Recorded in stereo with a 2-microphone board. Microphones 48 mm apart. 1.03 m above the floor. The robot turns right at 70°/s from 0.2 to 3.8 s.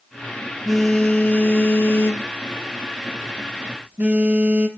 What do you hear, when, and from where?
0.7 s a phone buzzing: 5° right, 0.9 m; by 4.7 s 145° right, 0.9 m